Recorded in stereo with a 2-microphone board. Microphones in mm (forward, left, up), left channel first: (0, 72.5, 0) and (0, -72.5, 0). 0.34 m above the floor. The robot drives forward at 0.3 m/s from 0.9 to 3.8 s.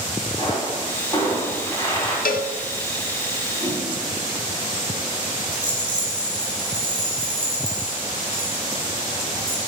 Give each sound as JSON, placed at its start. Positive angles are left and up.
{"t": 0.4, "sound": "a pop", "side_deg": 25, "distance_m": 3.0}
{"t": 2.2, "sound": "a cowbell", "side_deg": 80, "distance_m": 0.5}
{"t": 3.6, "sound": "a whoosh", "side_deg": 0, "distance_m": 3.0}
{"t": 5.5, "sound": "a rattle", "side_deg": -35, "distance_m": 3.0}